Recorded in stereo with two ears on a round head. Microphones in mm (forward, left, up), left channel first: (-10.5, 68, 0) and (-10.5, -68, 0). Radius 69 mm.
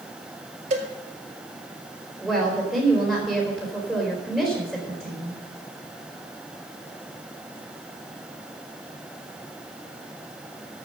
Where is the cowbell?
45° right (ahead or behind), 1.8 m.